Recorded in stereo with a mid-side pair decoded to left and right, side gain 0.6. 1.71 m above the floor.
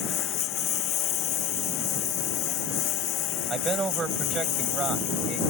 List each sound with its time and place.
0.0 s a lawn mower: 60° left; by 5.5 s 70° left
3.5 s a man speaking: 30° right